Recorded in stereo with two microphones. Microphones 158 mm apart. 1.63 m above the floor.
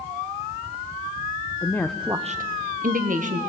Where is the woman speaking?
20° left (ahead or behind), 1.1 m; by 3.4 s 55° right (ahead or behind), 1.8 m.